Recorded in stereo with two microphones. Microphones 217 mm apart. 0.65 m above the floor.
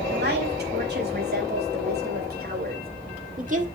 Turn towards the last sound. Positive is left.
turn(degrees=-35)  # may be behind; listen again after turning